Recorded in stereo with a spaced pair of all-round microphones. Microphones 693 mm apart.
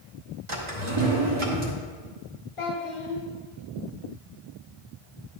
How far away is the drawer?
About 1.7 m.